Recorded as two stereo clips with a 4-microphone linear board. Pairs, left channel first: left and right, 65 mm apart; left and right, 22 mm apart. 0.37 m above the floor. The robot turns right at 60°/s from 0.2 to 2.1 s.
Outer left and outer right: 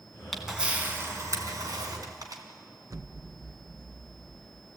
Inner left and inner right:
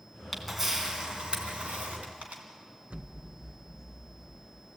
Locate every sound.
0.3 s a camera shutter: 5° left (ahead or behind), 3.5 m; by 2.4 s 70° right (ahead or behind), 3.5 m
2.9 s an explosion: 65° right (ahead or behind), 0.6 m